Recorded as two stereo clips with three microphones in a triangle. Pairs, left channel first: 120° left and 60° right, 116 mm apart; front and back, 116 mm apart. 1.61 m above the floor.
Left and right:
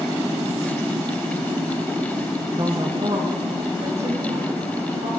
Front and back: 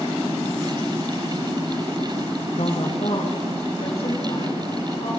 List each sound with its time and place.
2.6 s a woman speaking: straight ahead, 0.7 m; by 5.2 s 40° right, 4 m